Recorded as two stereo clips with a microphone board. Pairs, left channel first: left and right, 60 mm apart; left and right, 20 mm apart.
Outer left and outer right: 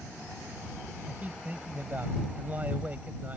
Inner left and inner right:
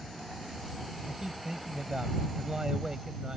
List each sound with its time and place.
1.1 s a man speaking: 30° right (ahead or behind)